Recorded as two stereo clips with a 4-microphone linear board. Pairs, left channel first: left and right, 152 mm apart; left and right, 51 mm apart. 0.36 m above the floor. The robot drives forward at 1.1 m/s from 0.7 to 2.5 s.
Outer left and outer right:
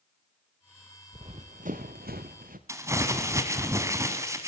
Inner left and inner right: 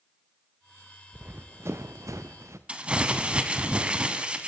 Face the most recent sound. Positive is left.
turn(degrees=-20)  # may be behind; listen again after turning